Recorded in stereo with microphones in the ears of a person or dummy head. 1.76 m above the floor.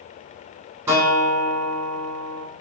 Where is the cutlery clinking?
I don't hear cutlery clinking.